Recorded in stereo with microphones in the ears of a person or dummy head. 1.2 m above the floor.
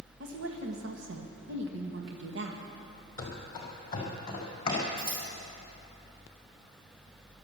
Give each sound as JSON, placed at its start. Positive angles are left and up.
{"t": 0.2, "sound": "a woman speaking", "side_deg": -65, "distance_m": 1.3}
{"t": 3.2, "sound": "running footsteps", "side_deg": 20, "distance_m": 2.0}
{"t": 5.0, "sound": "scissors", "side_deg": -60, "distance_m": 5.0}